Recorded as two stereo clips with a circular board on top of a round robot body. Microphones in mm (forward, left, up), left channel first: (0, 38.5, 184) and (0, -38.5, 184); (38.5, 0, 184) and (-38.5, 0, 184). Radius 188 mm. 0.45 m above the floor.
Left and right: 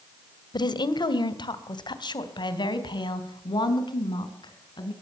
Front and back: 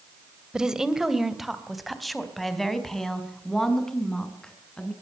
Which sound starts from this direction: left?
A woman speaking, at 0.5 s.